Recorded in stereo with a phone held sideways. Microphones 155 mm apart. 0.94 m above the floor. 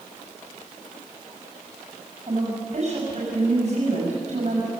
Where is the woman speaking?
50° right (ahead or behind), 6.5 m.